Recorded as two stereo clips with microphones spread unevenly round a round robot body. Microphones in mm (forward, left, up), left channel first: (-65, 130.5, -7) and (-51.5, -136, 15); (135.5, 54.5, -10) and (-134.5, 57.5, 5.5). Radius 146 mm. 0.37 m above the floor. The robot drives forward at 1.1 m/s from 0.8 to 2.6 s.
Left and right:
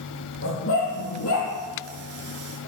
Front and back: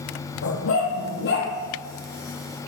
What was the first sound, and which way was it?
A dog barking, 40° left.